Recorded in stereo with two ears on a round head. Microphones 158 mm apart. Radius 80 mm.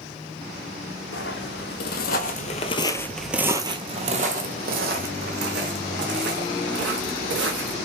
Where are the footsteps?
70° left (ahead or behind), 1.3 m; by 7.8 s 70° right (ahead or behind), 3 m.